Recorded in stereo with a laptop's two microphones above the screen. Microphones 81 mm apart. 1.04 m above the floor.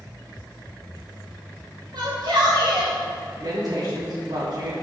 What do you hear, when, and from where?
1.9 s a shout: 65° right (ahead or behind), 1.9 m; by 3.0 s 55° right (ahead or behind), 1.2 m
3.4 s a woman speaking: 65° right (ahead or behind), 2 m